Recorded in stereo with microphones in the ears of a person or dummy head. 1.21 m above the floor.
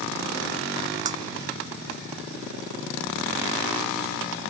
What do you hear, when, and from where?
1.1 s breaking glass: 35° right (ahead or behind)